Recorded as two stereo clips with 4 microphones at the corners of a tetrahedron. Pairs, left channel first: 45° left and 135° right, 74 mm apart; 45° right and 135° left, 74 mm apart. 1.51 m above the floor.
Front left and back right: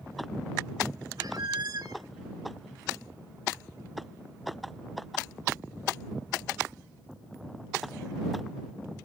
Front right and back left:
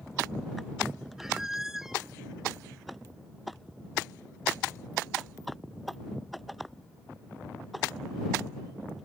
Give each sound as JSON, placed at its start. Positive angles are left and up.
{"t": 1.2, "sound": "a squeak", "azimuth_deg": -140}